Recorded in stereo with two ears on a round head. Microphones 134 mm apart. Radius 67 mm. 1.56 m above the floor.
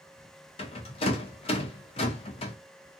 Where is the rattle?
40° left (ahead or behind), 0.6 m.